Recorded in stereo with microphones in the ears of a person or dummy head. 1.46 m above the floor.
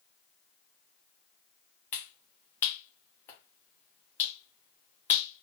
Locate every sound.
1.9 s a finger snap: 15° left (ahead or behind), 0.7 m